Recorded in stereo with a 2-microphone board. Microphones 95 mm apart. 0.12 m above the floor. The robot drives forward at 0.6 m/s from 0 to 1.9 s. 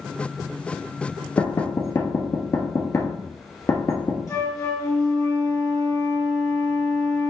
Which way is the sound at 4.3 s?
35° left (ahead or behind).